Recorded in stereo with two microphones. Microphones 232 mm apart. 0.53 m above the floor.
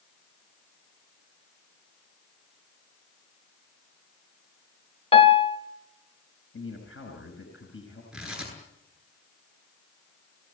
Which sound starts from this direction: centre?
Tearing paper, at 8.1 s.